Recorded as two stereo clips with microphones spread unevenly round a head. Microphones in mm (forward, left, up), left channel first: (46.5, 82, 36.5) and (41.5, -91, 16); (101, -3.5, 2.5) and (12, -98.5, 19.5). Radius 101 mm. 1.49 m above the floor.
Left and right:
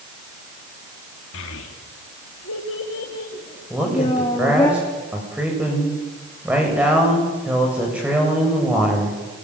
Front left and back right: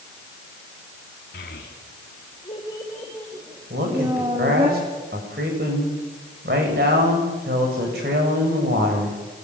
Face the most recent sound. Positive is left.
turn(degrees=-175)